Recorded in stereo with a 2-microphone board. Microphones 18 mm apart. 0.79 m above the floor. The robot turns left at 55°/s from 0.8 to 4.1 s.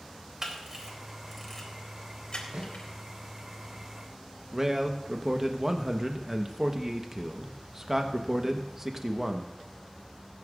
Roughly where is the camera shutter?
Right.